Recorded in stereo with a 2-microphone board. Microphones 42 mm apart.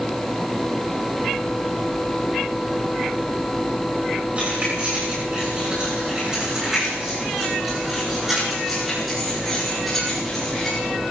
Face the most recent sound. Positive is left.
turn(degrees=10)  # may be behind; listen again after turning